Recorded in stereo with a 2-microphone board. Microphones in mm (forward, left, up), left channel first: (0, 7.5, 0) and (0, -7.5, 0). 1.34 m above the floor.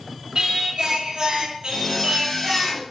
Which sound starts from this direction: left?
A zipper, at 1.7 s.